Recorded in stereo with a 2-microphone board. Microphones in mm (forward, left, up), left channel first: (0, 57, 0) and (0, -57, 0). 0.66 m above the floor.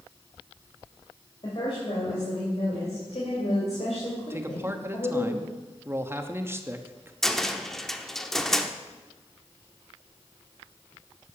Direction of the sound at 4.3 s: 20° right (ahead or behind).